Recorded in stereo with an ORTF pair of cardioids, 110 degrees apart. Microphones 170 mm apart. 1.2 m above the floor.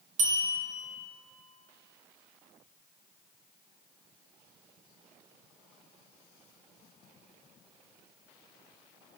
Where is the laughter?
No laughter in this recording.